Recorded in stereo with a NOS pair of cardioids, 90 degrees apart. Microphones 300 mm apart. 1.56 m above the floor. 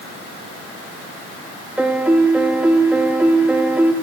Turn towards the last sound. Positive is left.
turn(degrees=-5)